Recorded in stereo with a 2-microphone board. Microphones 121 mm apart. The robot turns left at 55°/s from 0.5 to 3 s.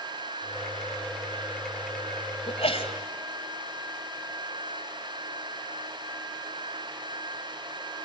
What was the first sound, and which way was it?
A sneeze, 55° left (ahead or behind).